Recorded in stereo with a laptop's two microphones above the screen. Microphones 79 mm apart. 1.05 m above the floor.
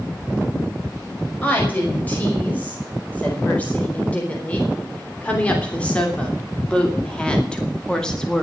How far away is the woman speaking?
About 5.5 m.